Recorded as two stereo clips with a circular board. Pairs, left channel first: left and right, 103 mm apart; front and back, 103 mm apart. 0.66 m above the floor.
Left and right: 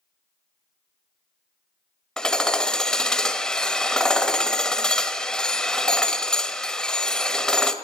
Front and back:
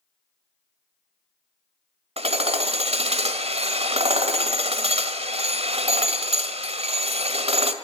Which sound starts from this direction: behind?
Hammering, at 2.2 s.